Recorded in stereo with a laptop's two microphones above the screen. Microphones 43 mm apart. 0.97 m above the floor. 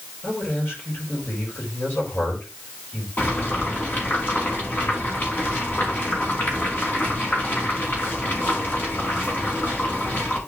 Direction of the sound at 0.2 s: 50° left (ahead or behind).